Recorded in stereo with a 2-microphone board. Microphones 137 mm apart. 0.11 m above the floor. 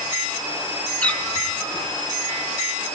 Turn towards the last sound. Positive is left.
turn(degrees=10)  # may be behind; listen again after turning